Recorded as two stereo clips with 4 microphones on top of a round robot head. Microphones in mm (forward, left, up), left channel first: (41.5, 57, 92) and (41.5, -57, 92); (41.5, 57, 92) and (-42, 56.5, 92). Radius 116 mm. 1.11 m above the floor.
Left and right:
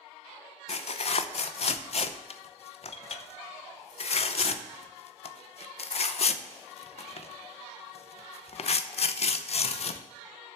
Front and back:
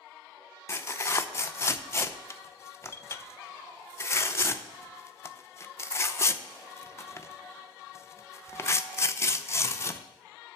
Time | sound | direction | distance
0.7 | tearing paper | 60° left | 0.7 m